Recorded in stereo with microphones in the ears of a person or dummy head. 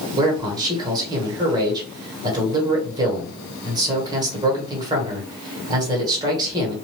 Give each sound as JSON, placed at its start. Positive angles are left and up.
{"t": 0.2, "sound": "a man speaking", "side_deg": -20, "distance_m": 1.6}